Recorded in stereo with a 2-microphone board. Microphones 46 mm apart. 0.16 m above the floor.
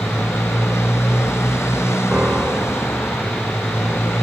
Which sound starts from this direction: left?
A motorcycle, at 0.0 s.